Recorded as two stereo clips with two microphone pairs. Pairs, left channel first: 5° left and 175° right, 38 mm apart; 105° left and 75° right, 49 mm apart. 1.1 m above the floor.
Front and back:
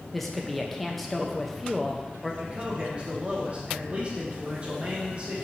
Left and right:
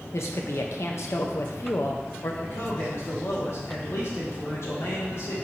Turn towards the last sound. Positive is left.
turn(degrees=125)